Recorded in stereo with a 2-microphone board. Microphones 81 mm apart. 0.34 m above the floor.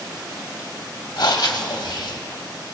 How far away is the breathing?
About 0.9 m.